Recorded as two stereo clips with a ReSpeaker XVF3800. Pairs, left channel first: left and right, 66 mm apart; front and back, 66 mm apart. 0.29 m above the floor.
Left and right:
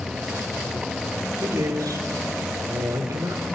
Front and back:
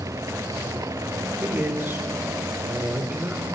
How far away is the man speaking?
About 4.5 m.